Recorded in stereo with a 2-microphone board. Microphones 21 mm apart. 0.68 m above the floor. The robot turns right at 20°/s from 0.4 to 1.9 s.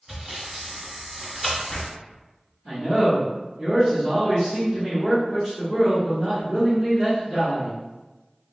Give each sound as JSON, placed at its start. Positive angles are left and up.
{"t": 0.1, "sound": "sawing", "side_deg": -10, "distance_m": 1.3}
{"t": 2.6, "sound": "a man speaking", "side_deg": -10, "distance_m": 1.2}